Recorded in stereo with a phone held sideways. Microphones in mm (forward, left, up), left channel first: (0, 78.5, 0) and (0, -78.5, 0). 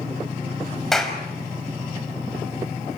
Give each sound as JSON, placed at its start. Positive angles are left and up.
{"t": 0.9, "sound": "a clap", "side_deg": 5, "distance_m": 4.5}